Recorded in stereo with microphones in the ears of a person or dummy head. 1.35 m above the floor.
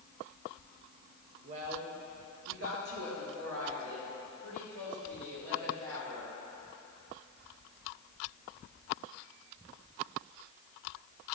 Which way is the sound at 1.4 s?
35° right (ahead or behind).